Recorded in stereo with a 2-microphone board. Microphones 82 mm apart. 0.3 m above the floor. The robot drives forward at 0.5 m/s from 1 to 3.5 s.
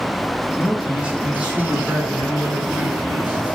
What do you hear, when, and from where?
0.6 s a man speaking: 10° right (ahead or behind), 3 m